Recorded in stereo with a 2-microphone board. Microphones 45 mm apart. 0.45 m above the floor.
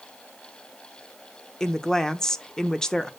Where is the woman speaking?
15° left (ahead or behind), 0.7 m.